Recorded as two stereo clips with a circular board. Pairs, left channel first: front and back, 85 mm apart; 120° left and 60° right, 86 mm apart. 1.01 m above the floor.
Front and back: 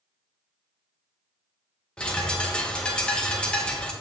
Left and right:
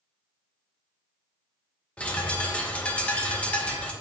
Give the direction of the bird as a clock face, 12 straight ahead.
10 o'clock.